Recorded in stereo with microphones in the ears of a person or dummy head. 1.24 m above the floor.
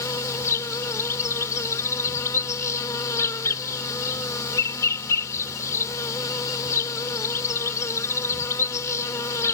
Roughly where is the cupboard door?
I don't hear a cupboard door.